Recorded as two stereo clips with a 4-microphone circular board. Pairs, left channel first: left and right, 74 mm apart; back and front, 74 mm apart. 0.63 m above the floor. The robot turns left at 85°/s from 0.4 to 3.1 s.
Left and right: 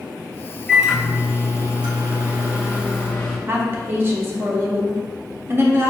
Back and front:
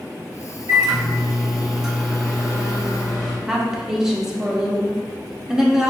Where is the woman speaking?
80° right, 0.6 m.